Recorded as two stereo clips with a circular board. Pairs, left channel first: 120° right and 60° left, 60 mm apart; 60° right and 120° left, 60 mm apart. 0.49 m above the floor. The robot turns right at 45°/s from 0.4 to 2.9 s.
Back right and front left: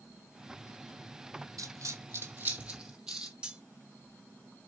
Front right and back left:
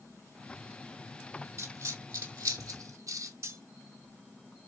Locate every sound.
1.6 s a dropped coin: 80° left, 1.6 m; by 3.3 s 140° left, 1.6 m
3.4 s cutlery clinking: 130° left, 0.7 m